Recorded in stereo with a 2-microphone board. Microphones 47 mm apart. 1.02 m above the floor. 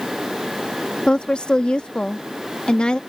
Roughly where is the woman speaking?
Left.